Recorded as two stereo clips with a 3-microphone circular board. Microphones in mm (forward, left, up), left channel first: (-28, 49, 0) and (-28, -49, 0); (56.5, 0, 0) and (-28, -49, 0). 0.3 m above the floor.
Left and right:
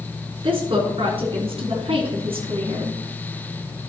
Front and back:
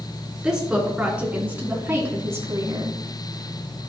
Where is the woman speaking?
65° right, 3.5 m; by 3.0 s 95° right, 2.5 m.